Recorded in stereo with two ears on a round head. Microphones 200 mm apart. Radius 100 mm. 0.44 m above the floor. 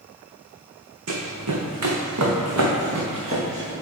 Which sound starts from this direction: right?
Running footsteps, at 1.1 s.